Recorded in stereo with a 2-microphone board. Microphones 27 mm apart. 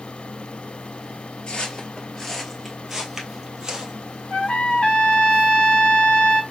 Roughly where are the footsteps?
Left.